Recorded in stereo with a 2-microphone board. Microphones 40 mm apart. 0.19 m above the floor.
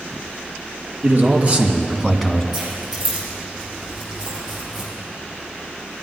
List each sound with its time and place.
1.0 s a man speaking: 45° right (ahead or behind), 3 m; by 2.4 s 5° left (ahead or behind), 1.9 m
2.5 s keys jangling: 10° right (ahead or behind), 5 m